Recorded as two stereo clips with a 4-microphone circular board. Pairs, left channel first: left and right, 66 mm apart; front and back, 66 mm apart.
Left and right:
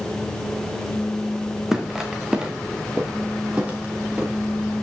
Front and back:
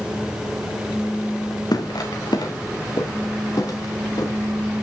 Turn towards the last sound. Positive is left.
turn(degrees=-20)